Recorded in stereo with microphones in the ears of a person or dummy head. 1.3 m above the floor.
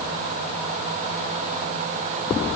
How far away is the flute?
I don't hear a flute.